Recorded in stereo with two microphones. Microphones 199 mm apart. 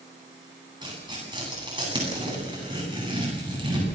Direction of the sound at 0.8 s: 25° right (ahead or behind).